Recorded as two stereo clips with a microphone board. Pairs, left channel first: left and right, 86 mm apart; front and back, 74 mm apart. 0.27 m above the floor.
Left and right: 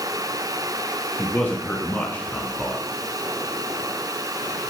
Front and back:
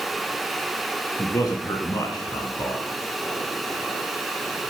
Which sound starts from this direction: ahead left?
A man speaking, at 1.2 s.